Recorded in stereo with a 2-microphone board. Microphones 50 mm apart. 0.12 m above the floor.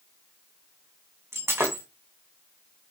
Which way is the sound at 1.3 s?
65° right (ahead or behind).